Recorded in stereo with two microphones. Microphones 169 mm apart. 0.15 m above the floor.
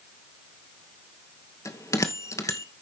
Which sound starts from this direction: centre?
A bell, at 1.6 s.